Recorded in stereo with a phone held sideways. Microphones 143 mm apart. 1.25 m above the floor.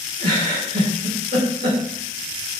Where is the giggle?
60° right (ahead or behind), 2.0 m.